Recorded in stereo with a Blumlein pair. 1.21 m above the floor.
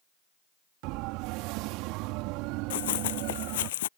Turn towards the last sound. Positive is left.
turn(degrees=55)